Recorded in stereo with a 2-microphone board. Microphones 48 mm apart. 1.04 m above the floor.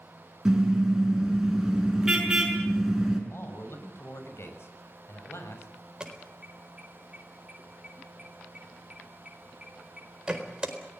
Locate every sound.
0.5 s a car horn: 10° right (ahead or behind), 6 m
3.3 s a man speaking: 60° left (ahead or behind), 6.5 m
6.0 s an alarm: 20° right (ahead or behind), 4 m